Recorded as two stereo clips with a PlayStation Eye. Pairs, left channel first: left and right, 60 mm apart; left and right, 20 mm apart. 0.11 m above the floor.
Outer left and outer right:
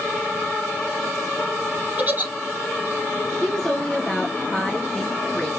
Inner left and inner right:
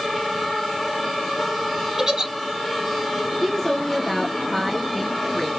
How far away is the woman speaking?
About 1.4 m.